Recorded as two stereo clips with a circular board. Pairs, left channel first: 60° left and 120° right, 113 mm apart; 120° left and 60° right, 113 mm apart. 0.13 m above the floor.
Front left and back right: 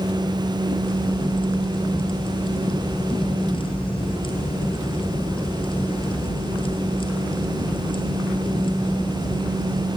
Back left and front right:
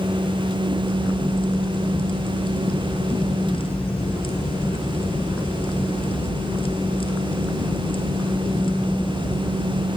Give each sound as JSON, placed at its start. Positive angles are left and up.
{"t": 0.8, "sound": "a crack", "azimuth_deg": 90, "distance_m": 2.5}